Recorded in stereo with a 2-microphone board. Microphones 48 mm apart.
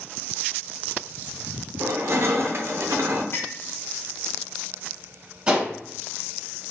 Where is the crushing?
60° right (ahead or behind), 0.6 m.